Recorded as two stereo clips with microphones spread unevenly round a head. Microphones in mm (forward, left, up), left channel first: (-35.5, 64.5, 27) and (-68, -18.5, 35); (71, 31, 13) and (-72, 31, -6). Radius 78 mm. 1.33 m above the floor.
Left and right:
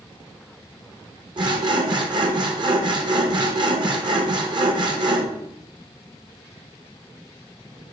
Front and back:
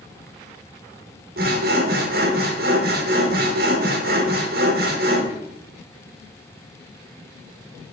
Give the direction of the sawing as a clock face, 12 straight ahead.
5 o'clock.